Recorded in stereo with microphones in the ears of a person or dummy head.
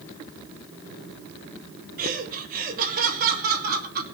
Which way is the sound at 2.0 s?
50° right (ahead or behind).